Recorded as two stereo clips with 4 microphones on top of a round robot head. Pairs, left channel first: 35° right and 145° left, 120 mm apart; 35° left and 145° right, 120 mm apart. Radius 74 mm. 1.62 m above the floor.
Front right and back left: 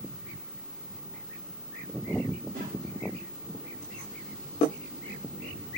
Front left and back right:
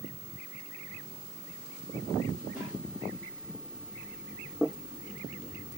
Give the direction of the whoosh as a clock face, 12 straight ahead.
7 o'clock.